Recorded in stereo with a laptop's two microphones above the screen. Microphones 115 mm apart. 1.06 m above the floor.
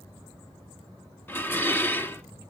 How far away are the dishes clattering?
About 1.4 m.